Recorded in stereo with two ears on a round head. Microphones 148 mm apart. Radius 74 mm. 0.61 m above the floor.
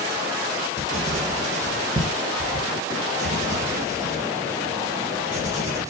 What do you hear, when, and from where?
0.8 s writing: 45° right (ahead or behind), 3.5 m